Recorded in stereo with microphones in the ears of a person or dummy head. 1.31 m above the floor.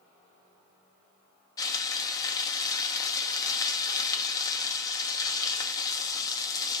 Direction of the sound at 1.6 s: 20° left (ahead or behind).